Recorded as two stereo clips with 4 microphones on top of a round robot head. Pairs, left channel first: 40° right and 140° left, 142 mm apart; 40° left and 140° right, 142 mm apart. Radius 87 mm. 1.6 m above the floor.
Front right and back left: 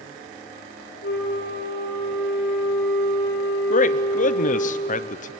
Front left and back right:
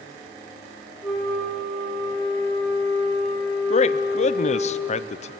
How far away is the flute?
About 4.5 m.